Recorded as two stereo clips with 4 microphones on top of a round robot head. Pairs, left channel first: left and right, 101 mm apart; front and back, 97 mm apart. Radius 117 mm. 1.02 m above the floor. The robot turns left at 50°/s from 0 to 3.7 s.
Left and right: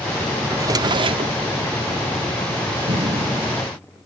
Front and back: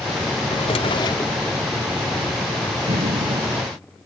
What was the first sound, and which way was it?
A drawer, 30° right.